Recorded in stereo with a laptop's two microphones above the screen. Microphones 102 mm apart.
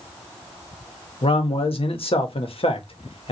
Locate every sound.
1.2 s a man speaking: 65° left (ahead or behind), 1.1 m